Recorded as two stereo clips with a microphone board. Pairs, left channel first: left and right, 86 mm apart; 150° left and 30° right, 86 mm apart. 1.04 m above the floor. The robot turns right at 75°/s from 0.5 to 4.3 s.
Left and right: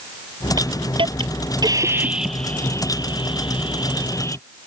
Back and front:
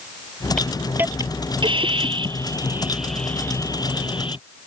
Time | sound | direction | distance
0.6 | a hiss | 130° right | ?